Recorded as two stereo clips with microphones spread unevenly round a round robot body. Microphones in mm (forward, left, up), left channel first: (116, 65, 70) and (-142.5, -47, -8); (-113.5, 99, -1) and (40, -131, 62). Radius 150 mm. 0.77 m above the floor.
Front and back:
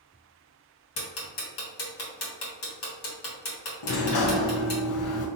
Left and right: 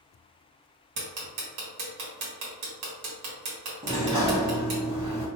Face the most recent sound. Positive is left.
turn(degrees=20)